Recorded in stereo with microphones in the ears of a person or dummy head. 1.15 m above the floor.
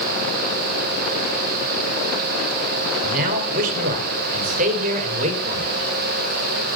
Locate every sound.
3.0 s a man speaking: 50° right (ahead or behind), 5 m; by 5.7 s 40° right (ahead or behind), 5.5 m